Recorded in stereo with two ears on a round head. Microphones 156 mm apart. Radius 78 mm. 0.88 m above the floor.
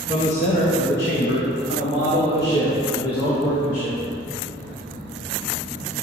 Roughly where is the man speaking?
Left.